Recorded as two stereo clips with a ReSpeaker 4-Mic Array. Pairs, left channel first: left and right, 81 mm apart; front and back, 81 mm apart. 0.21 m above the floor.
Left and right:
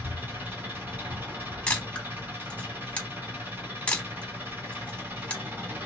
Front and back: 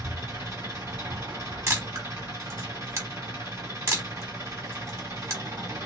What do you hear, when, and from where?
0.0 s an engine running: 140° right, 1.7 m
1.7 s a camera shutter: 155° left, 0.9 m